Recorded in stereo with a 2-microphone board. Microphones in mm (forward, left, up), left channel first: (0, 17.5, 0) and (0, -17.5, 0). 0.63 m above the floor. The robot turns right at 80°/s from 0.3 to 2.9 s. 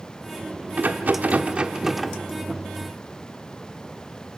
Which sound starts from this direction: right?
A rattle, at 0.8 s.